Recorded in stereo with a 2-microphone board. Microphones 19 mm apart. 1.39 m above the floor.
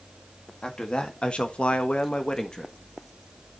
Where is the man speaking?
45° left (ahead or behind), 1.9 m; by 2.7 s 40° left (ahead or behind), 1.6 m.